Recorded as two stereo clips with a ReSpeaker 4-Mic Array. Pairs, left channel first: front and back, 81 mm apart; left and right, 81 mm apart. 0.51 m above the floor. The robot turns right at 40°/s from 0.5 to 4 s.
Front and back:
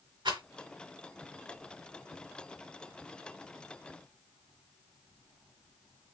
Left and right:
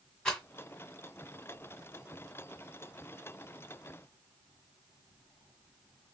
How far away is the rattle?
About 1.7 m.